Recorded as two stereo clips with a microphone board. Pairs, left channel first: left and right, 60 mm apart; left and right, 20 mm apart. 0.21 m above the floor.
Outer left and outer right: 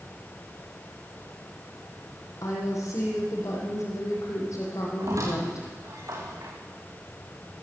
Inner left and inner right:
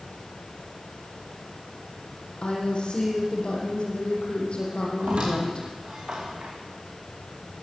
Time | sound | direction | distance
2.4 | a woman speaking | 60° left (ahead or behind) | 9.5 m
5.0 | a squeak | 60° right (ahead or behind) | 6.5 m